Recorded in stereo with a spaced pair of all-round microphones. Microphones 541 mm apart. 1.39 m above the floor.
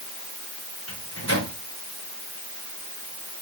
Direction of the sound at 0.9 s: 25° left (ahead or behind).